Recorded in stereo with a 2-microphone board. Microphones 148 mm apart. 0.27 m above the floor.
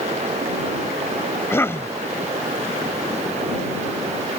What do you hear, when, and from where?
1.5 s a cough: 15° left (ahead or behind)